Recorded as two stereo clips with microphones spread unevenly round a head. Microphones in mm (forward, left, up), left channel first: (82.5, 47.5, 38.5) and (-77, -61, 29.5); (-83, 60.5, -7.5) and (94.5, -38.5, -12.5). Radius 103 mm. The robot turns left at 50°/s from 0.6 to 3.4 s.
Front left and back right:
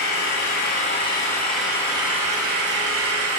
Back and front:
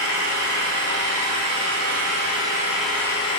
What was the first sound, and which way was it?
An engine running, 5° right.